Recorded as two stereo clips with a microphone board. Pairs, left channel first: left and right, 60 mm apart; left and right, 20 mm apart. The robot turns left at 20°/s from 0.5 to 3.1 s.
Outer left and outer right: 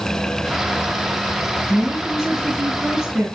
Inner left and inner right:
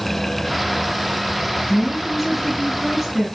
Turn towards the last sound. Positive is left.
turn(degrees=-15)  # may be behind; listen again after turning